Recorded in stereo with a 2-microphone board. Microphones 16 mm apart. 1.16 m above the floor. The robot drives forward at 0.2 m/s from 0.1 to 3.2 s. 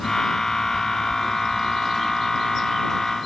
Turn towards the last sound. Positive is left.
No sound to turn to.